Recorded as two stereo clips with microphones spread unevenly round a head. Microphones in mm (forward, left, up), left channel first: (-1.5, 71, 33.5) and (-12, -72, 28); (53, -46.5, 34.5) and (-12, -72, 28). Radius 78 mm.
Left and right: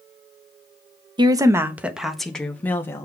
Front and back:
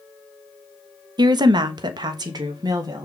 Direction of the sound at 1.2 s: 155° right.